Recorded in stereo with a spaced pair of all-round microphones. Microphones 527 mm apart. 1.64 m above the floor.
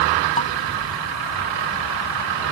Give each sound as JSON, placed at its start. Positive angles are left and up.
{"t": 0.4, "sound": "dishes clattering", "side_deg": 10}